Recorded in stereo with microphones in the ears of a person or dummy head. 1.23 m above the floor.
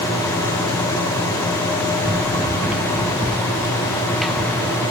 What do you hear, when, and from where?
2.0 s running footsteps: 5° right (ahead or behind); by 4.8 s 10° left (ahead or behind)